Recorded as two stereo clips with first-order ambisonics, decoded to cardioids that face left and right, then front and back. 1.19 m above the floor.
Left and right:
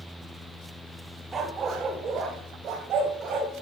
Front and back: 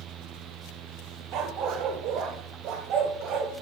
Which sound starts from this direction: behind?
A dog barking, at 1.3 s.